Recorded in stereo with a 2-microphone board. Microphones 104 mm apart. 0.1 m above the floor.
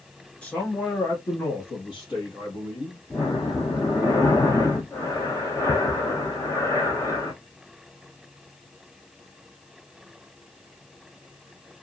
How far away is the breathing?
About 0.7 m.